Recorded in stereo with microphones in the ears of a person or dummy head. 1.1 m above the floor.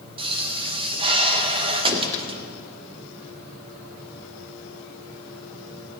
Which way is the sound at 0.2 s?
25° right (ahead or behind).